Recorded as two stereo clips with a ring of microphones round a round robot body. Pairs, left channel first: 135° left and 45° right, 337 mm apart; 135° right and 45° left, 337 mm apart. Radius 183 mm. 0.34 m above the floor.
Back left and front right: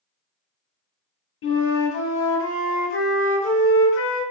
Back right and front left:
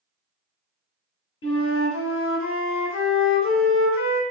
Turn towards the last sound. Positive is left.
turn(degrees=180)